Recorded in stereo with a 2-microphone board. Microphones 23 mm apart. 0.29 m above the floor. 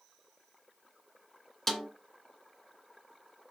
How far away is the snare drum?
About 2 m.